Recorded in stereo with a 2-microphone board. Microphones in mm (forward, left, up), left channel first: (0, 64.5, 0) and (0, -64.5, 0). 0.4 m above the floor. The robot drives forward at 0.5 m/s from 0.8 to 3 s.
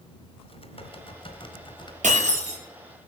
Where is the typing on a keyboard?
45° left (ahead or behind), 1.6 m; by 1.9 s 35° left (ahead or behind), 2 m.